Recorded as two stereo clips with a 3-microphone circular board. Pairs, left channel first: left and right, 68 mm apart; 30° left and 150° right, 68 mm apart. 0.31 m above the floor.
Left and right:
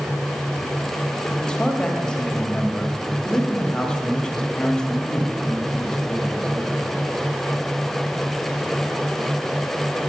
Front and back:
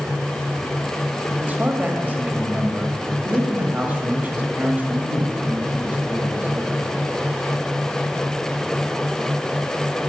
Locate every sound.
1.4 s a man speaking: 160° left, 1.7 m